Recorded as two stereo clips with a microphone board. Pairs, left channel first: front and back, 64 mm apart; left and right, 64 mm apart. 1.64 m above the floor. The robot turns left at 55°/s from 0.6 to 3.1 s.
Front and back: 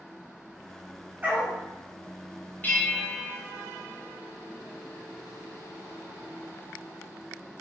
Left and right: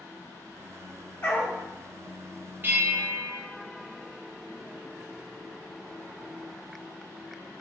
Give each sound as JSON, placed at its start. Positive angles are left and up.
{"t": 1.2, "sound": "a dog barking", "azimuth_deg": 130, "distance_m": 1.6}
{"t": 2.6, "sound": "a bell", "azimuth_deg": -50, "distance_m": 1.4}